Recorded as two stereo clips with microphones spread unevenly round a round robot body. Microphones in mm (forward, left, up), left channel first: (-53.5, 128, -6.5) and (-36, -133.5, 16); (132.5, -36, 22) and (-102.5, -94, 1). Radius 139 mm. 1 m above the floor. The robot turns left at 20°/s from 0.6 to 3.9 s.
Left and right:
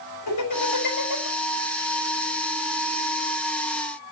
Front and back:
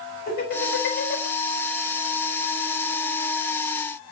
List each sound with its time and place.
0.3 s laughter: 70° left, 5.5 m; by 1.3 s 60° left, 5.5 m